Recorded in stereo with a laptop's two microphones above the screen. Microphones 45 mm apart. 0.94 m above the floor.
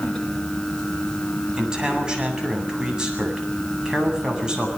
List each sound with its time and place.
0.0 s a fan: 15° left (ahead or behind), 4 m
1.6 s a man speaking: 20° right (ahead or behind), 8 m